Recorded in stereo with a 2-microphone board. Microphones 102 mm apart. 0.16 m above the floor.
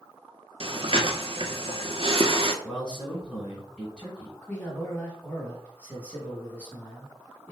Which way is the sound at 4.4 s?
15° left (ahead or behind).